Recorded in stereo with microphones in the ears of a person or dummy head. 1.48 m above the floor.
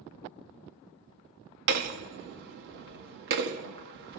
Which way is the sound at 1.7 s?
55° right (ahead or behind).